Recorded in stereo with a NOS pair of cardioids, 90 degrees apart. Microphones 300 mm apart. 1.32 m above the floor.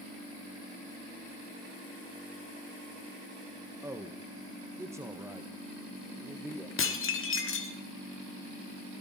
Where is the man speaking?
10° right, 1.5 m.